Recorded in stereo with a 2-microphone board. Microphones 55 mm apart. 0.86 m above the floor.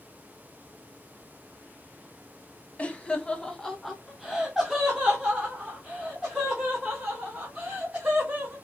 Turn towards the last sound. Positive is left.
turn(degrees=-30)  # may be behind; listen again after turning